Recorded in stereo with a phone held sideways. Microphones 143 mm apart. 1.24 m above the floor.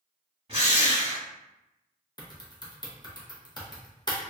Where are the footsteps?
I don't hear footsteps.